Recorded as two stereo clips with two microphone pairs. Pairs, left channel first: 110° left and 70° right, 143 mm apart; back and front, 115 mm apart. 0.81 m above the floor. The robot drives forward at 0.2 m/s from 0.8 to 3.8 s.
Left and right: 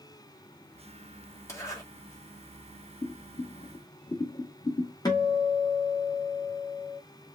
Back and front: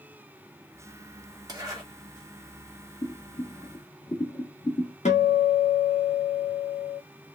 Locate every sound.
1.5 s a zipper: 50° left, 1.3 m
3.0 s boiling: 155° left, 1.6 m
5.0 s a guitar: 175° left, 0.9 m